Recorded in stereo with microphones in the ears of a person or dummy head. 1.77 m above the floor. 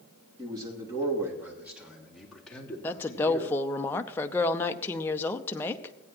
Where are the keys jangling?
I don't hear keys jangling.